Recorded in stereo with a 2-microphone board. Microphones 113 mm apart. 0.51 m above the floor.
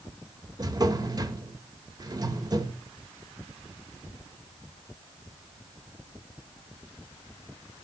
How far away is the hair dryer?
I don't hear a hair dryer.